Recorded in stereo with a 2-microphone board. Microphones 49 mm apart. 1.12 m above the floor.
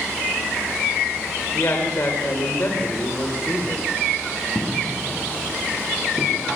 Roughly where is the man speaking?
Left.